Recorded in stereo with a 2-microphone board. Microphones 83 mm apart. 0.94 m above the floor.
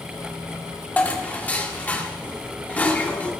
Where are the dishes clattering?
20° left (ahead or behind), 1.7 m.